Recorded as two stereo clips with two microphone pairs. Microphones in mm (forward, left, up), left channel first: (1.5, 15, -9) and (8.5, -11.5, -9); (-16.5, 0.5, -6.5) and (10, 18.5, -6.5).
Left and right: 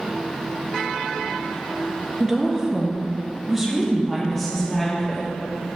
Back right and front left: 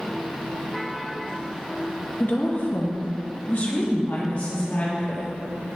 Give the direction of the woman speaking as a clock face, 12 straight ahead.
5 o'clock.